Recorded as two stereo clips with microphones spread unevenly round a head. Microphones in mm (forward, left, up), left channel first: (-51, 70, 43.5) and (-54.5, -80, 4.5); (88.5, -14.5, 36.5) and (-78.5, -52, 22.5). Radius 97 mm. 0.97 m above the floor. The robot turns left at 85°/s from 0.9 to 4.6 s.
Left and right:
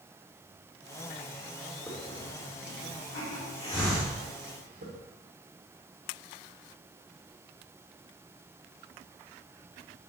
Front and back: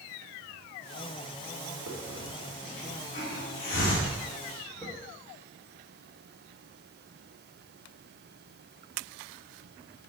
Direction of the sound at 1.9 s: 170° left.